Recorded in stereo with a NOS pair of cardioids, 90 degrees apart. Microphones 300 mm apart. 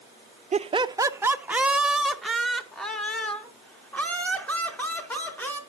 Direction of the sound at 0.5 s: 25° right.